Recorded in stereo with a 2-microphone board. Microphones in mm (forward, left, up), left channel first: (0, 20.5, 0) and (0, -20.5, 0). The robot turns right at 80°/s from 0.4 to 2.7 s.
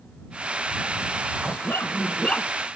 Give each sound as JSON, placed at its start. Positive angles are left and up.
{"t": 1.4, "sound": "a dog barking", "azimuth_deg": 80}